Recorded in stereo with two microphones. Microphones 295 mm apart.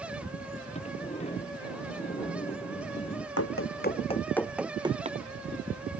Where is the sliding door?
20° left (ahead or behind).